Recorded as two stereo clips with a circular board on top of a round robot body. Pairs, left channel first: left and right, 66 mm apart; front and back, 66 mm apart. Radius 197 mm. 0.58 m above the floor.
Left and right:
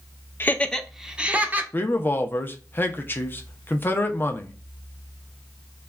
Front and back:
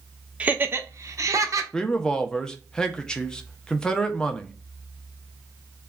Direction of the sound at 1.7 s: 70° left.